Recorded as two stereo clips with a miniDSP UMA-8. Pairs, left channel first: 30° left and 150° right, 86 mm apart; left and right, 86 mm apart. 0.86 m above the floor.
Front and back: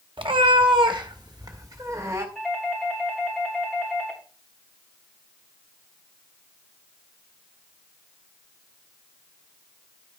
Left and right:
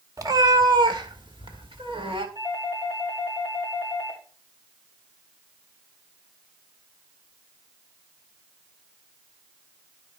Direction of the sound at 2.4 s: 60° right.